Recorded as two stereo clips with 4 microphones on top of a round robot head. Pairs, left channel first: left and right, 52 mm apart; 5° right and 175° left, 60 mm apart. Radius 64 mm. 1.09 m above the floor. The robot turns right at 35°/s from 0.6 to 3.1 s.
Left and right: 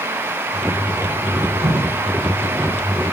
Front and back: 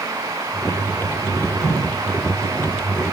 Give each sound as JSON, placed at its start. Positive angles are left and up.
{"t": 1.6, "sound": "dripping", "azimuth_deg": -65, "distance_m": 5.0}